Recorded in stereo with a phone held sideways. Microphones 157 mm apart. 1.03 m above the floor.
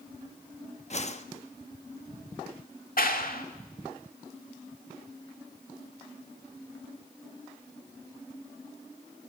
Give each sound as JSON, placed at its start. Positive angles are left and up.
{"t": 0.9, "sound": "a whoosh", "side_deg": 45, "distance_m": 1.1}
{"t": 3.0, "sound": "a clap", "side_deg": 65, "distance_m": 1.9}